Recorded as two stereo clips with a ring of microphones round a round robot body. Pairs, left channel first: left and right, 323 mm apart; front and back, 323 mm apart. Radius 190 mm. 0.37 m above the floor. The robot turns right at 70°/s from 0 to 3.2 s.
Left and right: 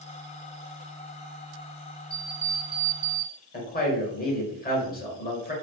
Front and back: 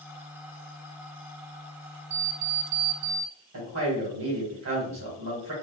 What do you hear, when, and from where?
2.1 s an alarm clock: 165° left, 0.7 m; by 3.3 s 120° right, 0.7 m
3.5 s a man speaking: 145° left, 1.6 m